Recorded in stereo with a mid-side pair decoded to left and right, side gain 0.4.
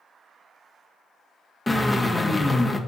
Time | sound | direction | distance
1.7 | a drill | 15° left | 1.3 m